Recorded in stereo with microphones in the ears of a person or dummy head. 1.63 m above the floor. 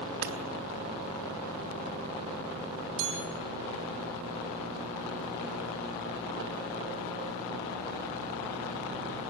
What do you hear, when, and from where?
0.2 s hammering: 60° right (ahead or behind), 3 m
3.0 s a chime: 70° right (ahead or behind), 6.5 m